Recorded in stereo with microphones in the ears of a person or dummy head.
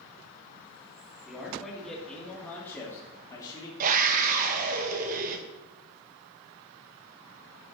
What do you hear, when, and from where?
1.2 s a man speaking: centre (ahead or behind), 3 m; by 3.7 s 25° left (ahead or behind), 2.5 m
3.8 s a scream: 45° right (ahead or behind), 1.4 m